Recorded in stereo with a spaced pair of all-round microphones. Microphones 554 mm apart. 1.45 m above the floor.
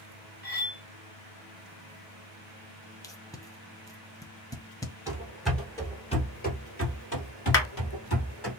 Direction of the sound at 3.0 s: 5° left (ahead or behind).